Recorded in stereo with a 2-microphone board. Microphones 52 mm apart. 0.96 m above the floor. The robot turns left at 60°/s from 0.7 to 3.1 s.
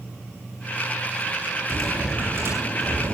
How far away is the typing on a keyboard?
About 9 m.